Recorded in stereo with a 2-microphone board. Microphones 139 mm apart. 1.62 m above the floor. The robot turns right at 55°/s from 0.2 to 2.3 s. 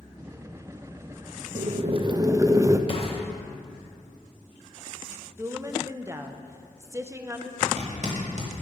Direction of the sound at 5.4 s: 20° right (ahead or behind).